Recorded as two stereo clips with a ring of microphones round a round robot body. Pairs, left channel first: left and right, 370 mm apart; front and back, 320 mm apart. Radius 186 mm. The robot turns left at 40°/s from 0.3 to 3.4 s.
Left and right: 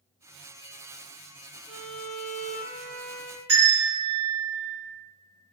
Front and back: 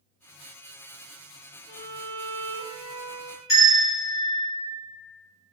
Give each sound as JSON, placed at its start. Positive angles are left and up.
{"t": 1.7, "sound": "a violin", "azimuth_deg": -40, "distance_m": 0.6}
{"t": 3.5, "sound": "a bell", "azimuth_deg": -80, "distance_m": 1.5}